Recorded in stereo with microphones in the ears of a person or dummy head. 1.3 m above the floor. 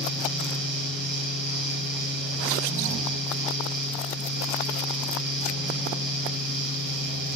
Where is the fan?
45° right (ahead or behind), 1.8 m.